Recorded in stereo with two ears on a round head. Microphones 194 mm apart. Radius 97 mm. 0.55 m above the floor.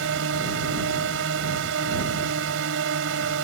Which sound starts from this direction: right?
A drone, at 0.0 s.